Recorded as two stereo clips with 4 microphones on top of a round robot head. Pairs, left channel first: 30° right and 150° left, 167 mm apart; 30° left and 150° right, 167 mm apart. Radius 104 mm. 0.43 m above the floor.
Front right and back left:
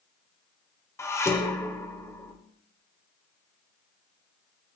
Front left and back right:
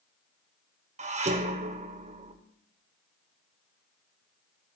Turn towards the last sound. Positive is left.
turn(degrees=-105)